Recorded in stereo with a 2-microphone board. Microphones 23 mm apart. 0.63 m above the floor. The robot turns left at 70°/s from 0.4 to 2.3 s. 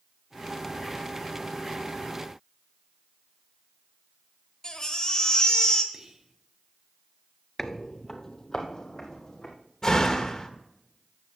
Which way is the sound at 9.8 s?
25° left (ahead or behind).